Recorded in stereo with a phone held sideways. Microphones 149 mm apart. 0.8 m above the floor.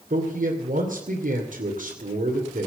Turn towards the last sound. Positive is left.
turn(degrees=-75)  # may be behind; listen again after turning